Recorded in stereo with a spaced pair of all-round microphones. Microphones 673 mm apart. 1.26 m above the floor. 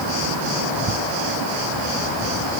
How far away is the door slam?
I don't hear a door slam.